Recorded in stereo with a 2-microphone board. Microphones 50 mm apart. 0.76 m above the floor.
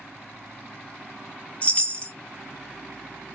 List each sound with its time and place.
1.6 s a chime: 25° left (ahead or behind), 0.6 m